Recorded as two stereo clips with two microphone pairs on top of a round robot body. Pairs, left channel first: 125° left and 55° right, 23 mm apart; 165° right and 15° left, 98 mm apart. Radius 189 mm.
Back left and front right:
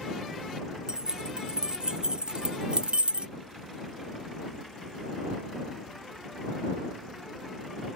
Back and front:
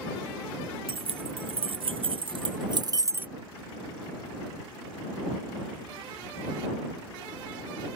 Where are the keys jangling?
5° left; by 3.3 s 55° right.